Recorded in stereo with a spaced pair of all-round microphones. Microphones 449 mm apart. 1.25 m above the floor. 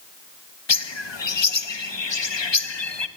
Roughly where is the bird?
Left.